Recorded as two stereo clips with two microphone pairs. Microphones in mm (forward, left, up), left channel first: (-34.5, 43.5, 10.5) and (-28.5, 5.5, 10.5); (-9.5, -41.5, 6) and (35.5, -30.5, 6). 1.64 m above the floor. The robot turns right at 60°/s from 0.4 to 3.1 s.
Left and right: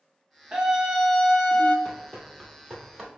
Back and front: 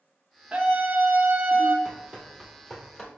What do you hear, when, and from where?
0.5 s a scream: 40° right, 0.5 m; by 1.8 s 35° left, 0.5 m
1.9 s running footsteps: 5° left, 1.8 m; by 3.1 s 140° right, 1.6 m